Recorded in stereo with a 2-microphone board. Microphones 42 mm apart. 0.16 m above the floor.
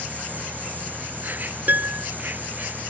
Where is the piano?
45° right (ahead or behind).